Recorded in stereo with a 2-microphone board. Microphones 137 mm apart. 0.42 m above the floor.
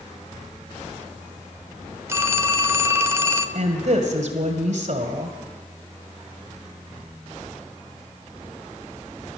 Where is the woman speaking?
65° right (ahead or behind), 2 m.